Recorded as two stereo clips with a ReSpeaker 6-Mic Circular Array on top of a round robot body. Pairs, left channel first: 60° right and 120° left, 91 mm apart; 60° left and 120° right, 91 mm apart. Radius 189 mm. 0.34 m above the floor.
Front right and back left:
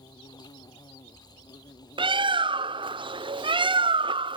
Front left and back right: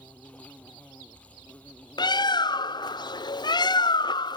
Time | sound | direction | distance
0.0 | an insect | 15° right | ?
2.0 | a bird | 95° left | ?